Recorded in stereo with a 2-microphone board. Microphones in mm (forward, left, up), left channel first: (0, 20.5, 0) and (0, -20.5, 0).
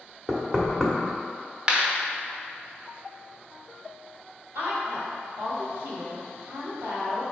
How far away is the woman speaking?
About 2.0 m.